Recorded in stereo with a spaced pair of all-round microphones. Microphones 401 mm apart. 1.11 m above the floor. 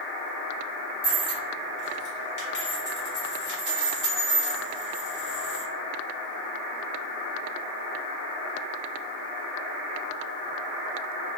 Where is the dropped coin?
45° left (ahead or behind), 1.1 m.